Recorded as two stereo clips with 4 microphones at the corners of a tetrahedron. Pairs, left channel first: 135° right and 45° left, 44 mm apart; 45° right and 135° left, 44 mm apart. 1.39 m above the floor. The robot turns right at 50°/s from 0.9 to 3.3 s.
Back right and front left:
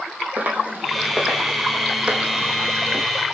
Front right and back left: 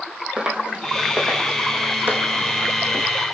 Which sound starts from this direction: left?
Footsteps, at 0.4 s.